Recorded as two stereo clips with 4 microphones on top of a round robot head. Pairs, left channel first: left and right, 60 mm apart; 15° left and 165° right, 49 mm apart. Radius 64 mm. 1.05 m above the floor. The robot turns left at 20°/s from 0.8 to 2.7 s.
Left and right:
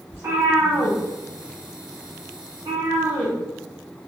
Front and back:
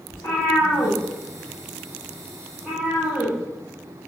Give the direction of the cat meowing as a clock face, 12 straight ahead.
1 o'clock.